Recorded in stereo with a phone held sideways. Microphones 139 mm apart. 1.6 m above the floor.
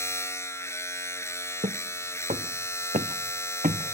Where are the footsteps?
55° right (ahead or behind); by 3.9 s 65° right (ahead or behind).